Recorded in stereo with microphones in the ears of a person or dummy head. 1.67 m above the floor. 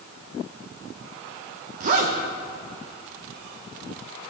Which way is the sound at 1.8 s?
40° right (ahead or behind).